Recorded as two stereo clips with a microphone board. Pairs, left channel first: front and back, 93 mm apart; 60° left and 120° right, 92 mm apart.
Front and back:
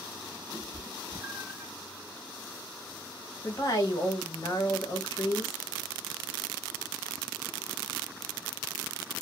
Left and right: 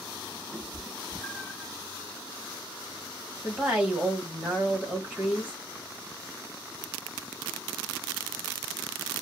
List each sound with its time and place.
0.5 s a cat meowing: 120° right, 0.6 m; by 1.7 s 115° left, 0.7 m
3.4 s a woman speaking: 50° right, 1.6 m